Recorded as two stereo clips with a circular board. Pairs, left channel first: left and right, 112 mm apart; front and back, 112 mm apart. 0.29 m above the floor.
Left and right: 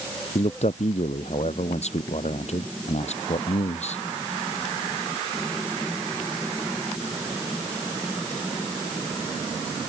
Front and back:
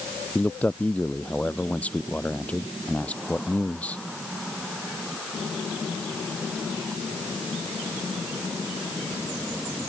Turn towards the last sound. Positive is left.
turn(degrees=80)